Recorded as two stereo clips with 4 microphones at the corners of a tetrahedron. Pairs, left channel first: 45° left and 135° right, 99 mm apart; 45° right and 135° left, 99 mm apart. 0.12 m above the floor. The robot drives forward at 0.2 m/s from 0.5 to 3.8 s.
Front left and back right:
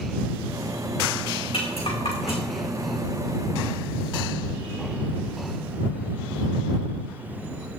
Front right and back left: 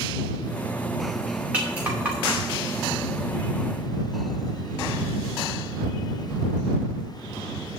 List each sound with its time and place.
1.5 s a rattle: 60° left, 4 m